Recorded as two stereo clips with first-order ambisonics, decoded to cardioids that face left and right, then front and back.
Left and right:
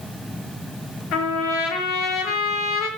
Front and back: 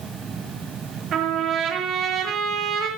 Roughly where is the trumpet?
Behind left.